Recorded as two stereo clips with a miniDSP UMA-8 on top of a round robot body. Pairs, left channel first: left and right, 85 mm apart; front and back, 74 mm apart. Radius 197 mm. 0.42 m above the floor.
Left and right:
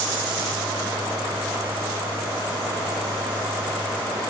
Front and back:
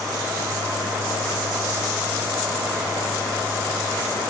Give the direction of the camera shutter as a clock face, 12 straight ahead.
I don't hear a camera shutter.